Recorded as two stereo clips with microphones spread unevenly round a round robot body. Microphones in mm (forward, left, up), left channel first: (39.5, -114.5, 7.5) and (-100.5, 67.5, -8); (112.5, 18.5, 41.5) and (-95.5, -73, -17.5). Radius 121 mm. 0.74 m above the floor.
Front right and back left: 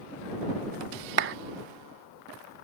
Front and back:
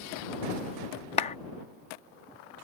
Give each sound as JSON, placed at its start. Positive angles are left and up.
{"t": 1.2, "sound": "a clap", "azimuth_deg": 95}